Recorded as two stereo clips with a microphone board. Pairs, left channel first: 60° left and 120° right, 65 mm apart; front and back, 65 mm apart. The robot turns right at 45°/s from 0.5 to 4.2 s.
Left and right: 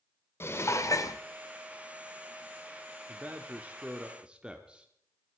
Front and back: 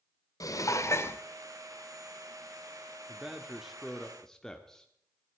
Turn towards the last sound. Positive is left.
turn(degrees=-70)